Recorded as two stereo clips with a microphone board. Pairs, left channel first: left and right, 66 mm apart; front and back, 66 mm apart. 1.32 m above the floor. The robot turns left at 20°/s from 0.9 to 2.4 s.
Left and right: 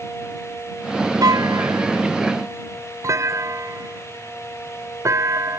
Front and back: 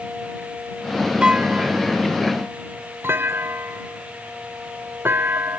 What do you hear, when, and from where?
1.2 s a clunk: 105° right; by 5.6 s 125° right